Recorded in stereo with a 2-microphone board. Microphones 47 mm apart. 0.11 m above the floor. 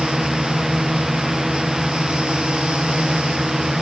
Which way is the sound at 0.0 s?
10° right (ahead or behind).